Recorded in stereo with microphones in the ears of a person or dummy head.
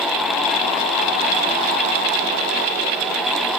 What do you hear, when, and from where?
Only background noise.